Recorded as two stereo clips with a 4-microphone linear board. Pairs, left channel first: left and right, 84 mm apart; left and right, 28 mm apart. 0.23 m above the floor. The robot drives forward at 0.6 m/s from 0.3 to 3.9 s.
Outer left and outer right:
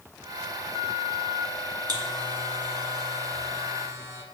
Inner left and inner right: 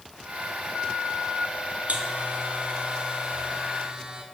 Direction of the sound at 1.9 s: 55° right (ahead or behind).